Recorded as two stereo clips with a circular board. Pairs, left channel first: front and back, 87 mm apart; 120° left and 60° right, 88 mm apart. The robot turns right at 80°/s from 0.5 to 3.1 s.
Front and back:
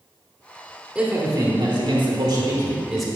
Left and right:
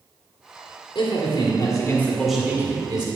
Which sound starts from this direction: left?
A man speaking, at 0.9 s.